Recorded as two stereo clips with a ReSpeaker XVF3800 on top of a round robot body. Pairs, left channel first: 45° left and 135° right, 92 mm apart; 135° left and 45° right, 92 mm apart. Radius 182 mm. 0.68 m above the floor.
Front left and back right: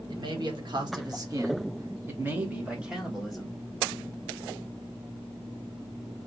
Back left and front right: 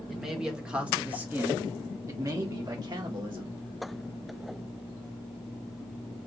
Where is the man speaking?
130° right, 1.8 m; by 3.6 s 40° right, 1.6 m.